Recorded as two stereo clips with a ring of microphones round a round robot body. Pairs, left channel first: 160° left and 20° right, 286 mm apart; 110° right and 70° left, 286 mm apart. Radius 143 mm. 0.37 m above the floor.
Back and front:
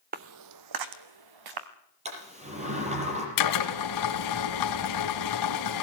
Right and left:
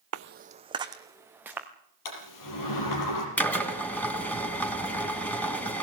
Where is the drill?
165° left, 2.5 m.